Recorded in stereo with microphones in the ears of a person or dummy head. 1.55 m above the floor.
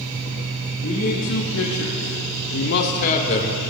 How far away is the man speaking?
About 1.3 m.